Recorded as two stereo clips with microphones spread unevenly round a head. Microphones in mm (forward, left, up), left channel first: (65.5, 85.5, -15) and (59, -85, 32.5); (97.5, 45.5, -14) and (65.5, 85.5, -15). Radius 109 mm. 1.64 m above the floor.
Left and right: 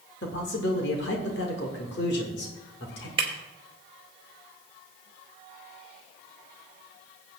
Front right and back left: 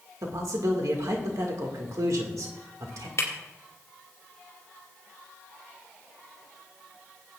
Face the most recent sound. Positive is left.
turn(degrees=-45)